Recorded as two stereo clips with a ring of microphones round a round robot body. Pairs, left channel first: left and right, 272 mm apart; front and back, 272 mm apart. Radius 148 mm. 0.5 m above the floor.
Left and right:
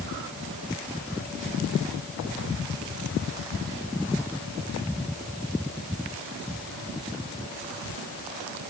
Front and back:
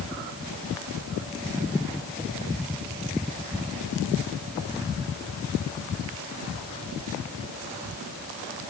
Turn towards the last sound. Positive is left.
No sound to turn to.